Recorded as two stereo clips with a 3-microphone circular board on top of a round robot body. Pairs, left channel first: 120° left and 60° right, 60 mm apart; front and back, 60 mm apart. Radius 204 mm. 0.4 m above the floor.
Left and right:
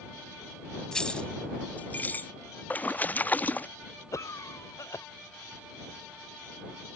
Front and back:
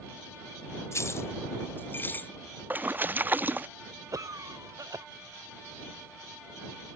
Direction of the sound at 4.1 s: 155° left.